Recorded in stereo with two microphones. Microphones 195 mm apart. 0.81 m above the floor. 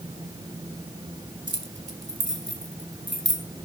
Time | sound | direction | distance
1.5 | keys jangling | 75° right (ahead or behind) | 2.5 m